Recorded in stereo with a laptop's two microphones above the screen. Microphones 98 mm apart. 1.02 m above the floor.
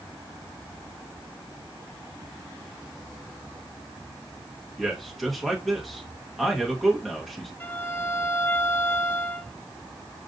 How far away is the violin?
About 0.6 m.